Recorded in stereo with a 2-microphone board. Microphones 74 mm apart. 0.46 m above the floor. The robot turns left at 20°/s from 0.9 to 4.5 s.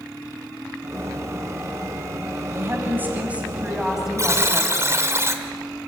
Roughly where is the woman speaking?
Behind right.